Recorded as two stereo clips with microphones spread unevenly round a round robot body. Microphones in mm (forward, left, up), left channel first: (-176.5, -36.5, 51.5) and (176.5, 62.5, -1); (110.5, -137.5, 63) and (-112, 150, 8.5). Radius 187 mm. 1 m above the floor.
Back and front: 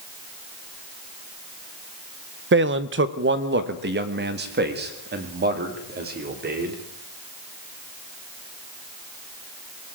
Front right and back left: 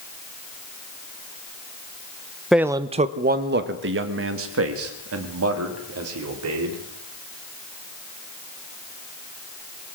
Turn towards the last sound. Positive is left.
turn(degrees=80)